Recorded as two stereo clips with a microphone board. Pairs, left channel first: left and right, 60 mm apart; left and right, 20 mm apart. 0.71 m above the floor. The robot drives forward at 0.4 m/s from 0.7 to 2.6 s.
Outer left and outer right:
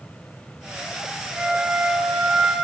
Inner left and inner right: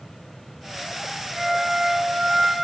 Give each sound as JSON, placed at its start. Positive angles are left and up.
{"t": 1.4, "sound": "a flute", "side_deg": -15, "distance_m": 0.7}